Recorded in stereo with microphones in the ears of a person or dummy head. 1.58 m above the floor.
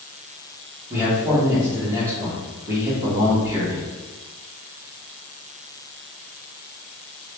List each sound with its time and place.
0.9 s a man speaking: 15° right (ahead or behind), 1.2 m